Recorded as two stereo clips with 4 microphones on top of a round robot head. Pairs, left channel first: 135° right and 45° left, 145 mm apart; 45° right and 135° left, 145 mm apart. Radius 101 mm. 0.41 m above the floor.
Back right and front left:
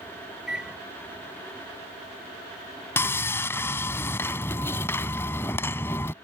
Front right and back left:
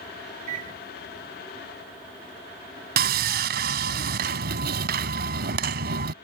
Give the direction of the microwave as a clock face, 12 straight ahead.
8 o'clock.